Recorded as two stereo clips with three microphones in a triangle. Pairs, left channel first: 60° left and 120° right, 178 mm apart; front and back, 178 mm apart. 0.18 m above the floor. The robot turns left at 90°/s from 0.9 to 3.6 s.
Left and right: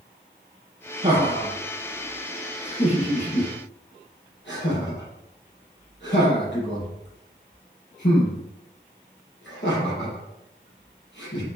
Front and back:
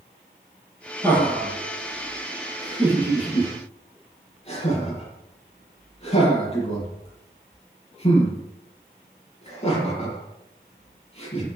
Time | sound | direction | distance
1.0 | laughter | 75° right | 6 m